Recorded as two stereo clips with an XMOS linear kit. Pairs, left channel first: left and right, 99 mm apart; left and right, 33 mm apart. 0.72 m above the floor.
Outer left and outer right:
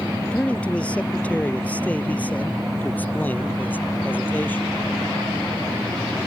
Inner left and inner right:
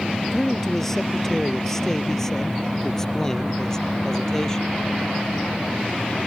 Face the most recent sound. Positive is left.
turn(degrees=20)  # may be behind; listen again after turning